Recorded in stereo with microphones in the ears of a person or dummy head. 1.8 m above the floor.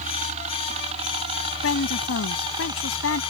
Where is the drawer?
I don't hear a drawer.